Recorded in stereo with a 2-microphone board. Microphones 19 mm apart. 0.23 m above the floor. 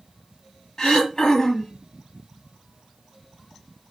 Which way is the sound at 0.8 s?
35° left (ahead or behind).